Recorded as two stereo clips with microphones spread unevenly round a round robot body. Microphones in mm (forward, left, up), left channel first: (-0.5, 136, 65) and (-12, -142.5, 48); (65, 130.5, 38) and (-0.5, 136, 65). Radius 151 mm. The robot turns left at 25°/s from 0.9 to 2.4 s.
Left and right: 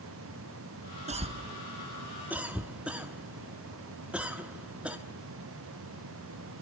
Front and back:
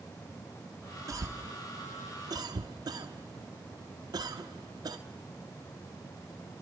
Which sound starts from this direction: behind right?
A cough, at 1.1 s.